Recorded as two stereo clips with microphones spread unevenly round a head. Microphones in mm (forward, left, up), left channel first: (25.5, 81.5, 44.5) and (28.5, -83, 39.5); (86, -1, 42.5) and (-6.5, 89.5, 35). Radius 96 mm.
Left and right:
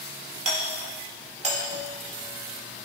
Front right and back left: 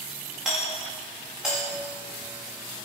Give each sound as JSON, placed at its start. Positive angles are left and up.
{"t": 0.5, "sound": "a doorbell", "azimuth_deg": -140, "distance_m": 1.9}